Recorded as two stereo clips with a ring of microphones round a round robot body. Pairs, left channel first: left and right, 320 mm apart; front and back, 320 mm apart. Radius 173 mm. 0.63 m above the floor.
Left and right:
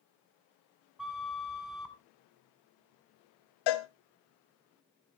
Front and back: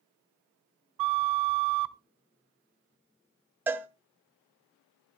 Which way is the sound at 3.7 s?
95° left.